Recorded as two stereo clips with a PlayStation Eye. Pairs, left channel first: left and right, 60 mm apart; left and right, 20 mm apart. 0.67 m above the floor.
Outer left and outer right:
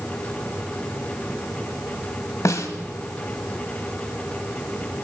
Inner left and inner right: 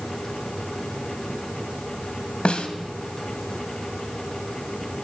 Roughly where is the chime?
I don't hear a chime.